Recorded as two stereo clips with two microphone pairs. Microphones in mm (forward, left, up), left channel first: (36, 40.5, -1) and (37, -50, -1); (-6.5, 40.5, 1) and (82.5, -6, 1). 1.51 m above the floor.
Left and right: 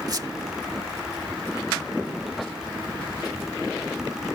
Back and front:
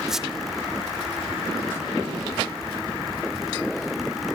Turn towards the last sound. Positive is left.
turn(degrees=-110)